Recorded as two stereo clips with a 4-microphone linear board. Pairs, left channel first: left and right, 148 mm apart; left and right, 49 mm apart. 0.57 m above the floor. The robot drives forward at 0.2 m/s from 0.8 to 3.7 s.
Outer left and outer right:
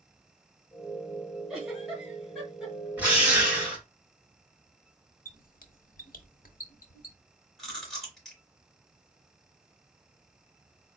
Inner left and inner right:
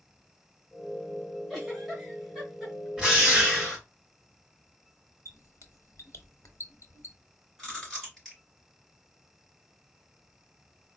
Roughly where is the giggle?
Centre.